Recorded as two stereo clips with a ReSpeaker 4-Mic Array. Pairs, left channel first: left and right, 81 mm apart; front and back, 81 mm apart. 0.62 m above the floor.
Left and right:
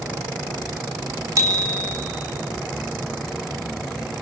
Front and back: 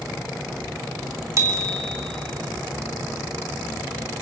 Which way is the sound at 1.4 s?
135° right.